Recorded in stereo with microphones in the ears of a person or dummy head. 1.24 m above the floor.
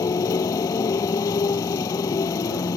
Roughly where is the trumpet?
No trumpet in this recording.